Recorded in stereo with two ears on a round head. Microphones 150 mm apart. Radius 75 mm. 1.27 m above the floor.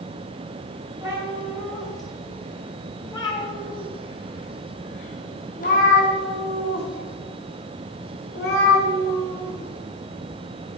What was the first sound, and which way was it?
A cat meowing, 15° right (ahead or behind).